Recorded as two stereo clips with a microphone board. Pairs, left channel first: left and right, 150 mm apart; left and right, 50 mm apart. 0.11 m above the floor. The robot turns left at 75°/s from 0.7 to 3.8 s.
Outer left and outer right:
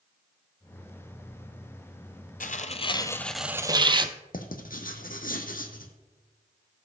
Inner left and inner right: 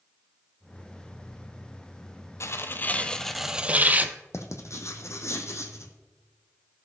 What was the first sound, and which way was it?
Tearing paper, 75° left.